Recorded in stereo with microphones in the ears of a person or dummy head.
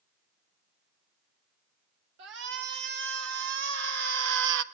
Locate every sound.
2.2 s a shout: 65° right (ahead or behind), 4.5 m; by 4.6 s 75° right (ahead or behind), 1.4 m